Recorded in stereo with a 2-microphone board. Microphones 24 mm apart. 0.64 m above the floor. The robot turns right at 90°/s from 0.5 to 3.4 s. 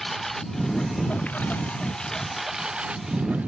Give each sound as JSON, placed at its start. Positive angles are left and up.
{"t": 0.0, "sound": "a lawn mower", "azimuth_deg": 5}